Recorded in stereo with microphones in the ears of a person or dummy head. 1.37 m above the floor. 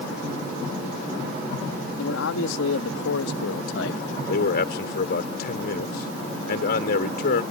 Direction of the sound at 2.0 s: 70° left (ahead or behind).